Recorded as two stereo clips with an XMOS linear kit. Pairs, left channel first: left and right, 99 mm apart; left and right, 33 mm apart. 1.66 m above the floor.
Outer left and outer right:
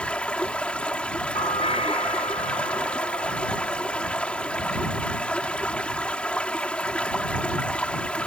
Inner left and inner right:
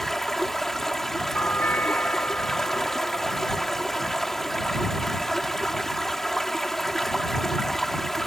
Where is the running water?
10° left (ahead or behind).